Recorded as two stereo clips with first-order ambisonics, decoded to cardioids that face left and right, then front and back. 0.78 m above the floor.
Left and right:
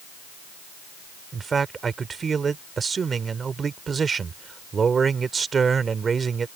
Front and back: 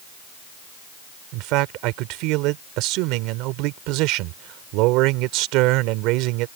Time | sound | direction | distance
1.3 | a man speaking | 160° right | ?